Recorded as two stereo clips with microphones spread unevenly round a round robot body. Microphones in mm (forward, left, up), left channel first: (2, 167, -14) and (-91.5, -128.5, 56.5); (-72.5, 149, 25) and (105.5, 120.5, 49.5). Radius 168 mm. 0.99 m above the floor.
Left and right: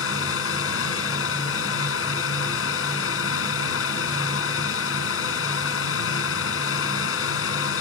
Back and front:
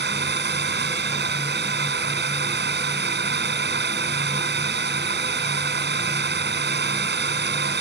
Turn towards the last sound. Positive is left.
turn(degrees=20)